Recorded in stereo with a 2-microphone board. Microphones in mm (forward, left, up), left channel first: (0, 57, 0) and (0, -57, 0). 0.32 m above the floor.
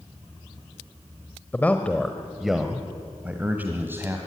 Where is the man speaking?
15° left (ahead or behind), 1.1 m; by 4.2 s 20° right (ahead or behind), 1.9 m.